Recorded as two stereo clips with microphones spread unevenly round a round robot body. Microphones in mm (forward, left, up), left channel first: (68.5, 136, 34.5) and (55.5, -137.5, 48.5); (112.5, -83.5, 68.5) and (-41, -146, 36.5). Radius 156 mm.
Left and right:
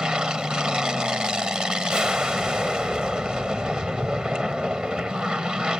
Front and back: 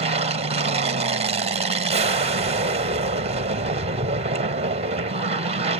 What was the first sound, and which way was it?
An aircraft, straight behind.